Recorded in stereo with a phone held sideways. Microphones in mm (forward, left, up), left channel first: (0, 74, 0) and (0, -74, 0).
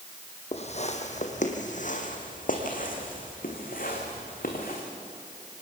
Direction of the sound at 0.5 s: 45° left (ahead or behind).